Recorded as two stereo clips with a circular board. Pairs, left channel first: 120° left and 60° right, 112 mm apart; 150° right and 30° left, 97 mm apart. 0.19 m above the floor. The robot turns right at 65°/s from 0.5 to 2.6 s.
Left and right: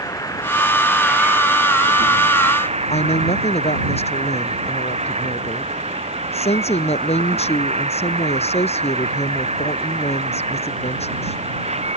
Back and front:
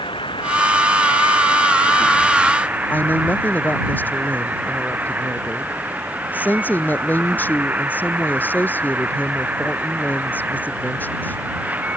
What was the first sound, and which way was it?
An insect, straight behind.